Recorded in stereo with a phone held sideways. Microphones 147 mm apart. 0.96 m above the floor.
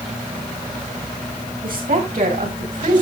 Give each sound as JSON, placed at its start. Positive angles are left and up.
{"t": 1.6, "sound": "a woman speaking", "side_deg": -75, "distance_m": 5.5}